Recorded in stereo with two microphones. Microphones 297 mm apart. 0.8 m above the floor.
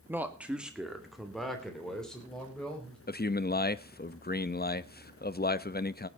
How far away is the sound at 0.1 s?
About 1.2 m.